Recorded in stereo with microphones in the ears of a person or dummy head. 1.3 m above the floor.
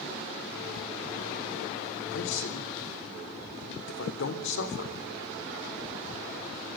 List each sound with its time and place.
2.1 s a man speaking: 70° left (ahead or behind), 3.5 m